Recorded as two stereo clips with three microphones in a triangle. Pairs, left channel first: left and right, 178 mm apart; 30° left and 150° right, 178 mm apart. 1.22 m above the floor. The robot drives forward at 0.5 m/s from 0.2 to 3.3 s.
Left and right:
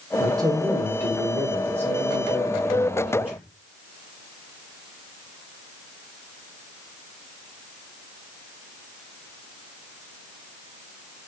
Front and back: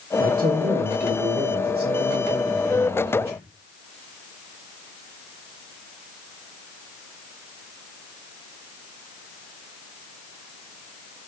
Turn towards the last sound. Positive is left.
turn(degrees=-170)